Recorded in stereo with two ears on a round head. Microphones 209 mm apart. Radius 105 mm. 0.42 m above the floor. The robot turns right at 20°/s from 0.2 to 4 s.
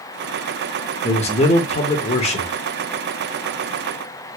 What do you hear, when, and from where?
1.0 s a man speaking: 30° left (ahead or behind), 0.8 m